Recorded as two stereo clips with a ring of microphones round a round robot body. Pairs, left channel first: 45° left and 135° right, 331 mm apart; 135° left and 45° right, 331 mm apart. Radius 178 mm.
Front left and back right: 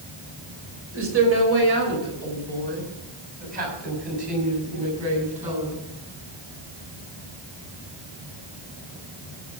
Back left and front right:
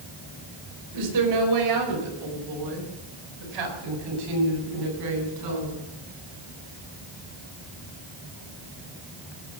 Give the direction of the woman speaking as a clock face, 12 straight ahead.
3 o'clock.